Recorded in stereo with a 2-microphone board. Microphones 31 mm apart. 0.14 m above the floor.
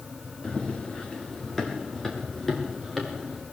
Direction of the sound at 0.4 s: 30° left (ahead or behind).